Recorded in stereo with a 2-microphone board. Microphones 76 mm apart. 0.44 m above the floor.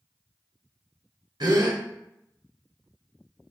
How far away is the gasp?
About 0.8 m.